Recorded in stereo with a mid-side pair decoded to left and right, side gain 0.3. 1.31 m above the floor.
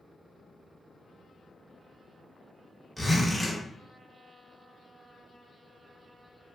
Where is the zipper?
5° left, 1.3 m.